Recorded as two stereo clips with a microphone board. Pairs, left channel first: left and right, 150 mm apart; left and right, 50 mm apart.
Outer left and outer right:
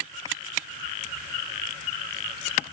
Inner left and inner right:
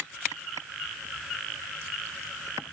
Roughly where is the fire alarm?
I don't hear a fire alarm.